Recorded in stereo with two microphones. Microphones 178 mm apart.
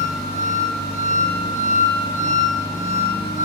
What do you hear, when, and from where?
0.0 s an engine running: 5° right (ahead or behind), 1.3 m